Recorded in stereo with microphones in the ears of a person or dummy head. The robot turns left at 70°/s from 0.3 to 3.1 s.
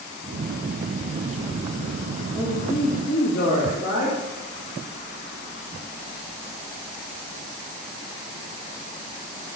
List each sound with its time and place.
2.4 s a man speaking: 175° left, 2 m; by 4.2 s 125° left, 2 m